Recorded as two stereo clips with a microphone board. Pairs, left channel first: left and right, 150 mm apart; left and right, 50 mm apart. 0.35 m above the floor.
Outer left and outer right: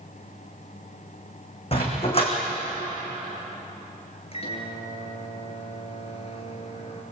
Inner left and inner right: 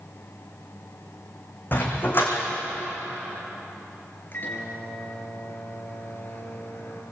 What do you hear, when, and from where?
1.7 s a dog barking: 40° left (ahead or behind), 6 m
4.3 s a microwave: 40° left (ahead or behind), 4.5 m